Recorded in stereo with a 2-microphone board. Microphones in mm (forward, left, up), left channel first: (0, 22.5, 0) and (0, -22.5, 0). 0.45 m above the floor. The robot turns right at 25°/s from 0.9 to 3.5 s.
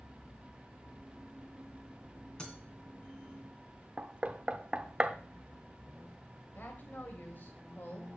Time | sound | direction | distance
2.4 | breaking glass | 20° left (ahead or behind) | 2 m
4.0 | knocking | 25° right (ahead or behind) | 0.6 m
6.5 | a woman speaking | 40° left (ahead or behind) | 2 m